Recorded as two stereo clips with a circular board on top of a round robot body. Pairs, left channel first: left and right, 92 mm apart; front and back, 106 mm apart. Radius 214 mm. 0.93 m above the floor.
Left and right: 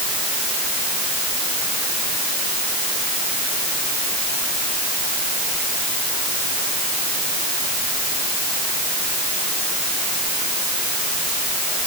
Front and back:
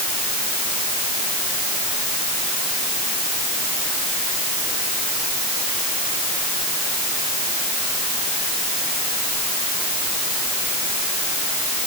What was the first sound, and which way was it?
Only background noise.